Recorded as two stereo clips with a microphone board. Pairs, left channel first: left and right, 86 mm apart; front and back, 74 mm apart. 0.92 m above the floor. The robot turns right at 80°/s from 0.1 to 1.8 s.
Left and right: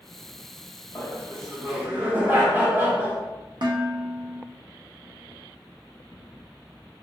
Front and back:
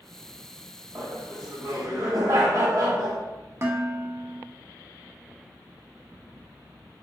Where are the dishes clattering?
125° right, 0.5 m.